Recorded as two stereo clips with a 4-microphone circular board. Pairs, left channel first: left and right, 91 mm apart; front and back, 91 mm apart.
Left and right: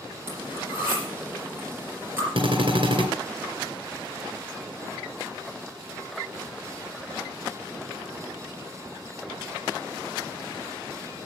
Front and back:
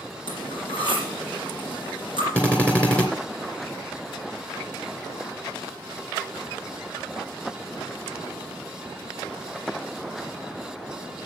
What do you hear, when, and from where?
0.3 s cutlery clinking: 20° right, 4.5 m
2.4 s a drill: 75° right, 2.5 m